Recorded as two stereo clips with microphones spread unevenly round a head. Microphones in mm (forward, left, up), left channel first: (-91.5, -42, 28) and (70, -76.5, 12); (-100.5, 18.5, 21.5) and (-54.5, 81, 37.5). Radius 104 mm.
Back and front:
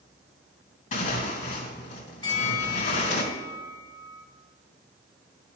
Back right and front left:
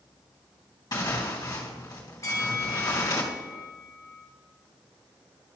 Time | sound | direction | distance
0.9 | tearing paper | 170° right | 3 m
2.2 | a bell | 160° right | 1.6 m